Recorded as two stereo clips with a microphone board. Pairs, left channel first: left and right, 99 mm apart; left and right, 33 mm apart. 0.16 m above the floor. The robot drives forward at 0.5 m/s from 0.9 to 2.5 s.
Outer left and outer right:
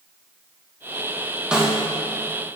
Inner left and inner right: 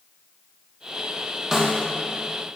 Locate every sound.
1.5 s a snare drum: 10° right (ahead or behind), 1.9 m